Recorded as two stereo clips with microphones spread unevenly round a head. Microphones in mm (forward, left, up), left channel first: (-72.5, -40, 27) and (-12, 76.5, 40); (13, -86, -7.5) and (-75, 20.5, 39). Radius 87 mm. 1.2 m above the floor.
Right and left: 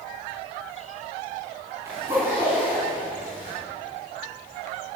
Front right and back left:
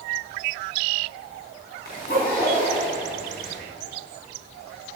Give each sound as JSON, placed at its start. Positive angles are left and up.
{"t": 1.9, "sound": "a zipper", "azimuth_deg": -10, "distance_m": 5.0}